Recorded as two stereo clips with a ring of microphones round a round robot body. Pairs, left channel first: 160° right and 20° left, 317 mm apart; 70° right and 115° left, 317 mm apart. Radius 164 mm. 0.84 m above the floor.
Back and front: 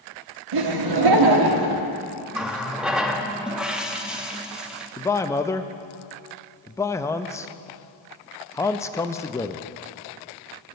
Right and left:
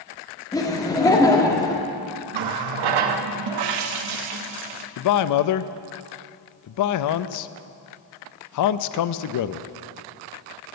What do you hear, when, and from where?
0.5 s laughter: 10° left, 1.5 m
2.3 s a running tap: 110° left, 0.8 m
5.0 s a man speaking: 80° right, 0.5 m